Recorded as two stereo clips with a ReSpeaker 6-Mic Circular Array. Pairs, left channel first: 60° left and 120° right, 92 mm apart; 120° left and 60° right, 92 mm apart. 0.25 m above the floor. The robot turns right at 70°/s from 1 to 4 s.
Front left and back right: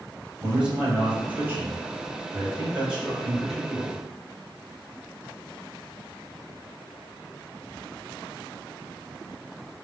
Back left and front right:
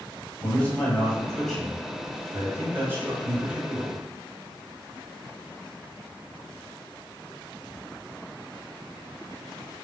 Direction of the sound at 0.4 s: 175° left.